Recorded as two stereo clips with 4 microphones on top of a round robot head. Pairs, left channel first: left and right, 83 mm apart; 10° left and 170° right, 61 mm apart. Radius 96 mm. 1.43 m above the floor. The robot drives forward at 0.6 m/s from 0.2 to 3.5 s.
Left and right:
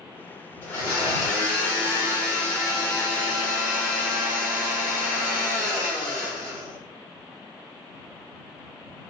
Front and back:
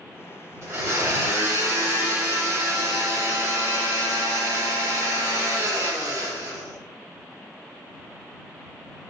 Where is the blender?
150° left, 3.5 m; by 6.8 s 160° left, 5 m.